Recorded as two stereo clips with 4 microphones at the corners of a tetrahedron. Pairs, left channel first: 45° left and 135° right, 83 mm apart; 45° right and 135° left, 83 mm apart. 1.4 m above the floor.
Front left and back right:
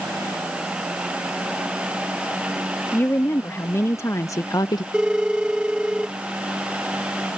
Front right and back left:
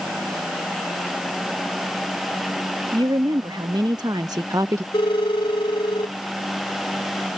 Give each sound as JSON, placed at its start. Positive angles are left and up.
{"t": 2.9, "sound": "a woman speaking", "azimuth_deg": 110}
{"t": 4.9, "sound": "a phone ringing", "azimuth_deg": -55}